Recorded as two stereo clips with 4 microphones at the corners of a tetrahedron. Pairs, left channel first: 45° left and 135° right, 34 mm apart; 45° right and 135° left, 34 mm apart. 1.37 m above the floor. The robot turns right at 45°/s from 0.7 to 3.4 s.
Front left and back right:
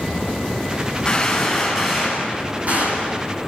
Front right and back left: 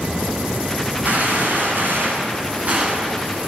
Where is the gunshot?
110° left, 9.5 m; by 3.1 s 160° right, 9.5 m.